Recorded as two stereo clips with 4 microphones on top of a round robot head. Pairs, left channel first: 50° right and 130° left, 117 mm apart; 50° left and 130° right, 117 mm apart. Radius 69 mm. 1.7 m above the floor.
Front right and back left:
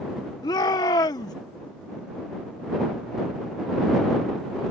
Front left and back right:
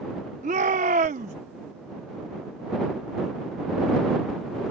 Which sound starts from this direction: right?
A shout, at 0.4 s.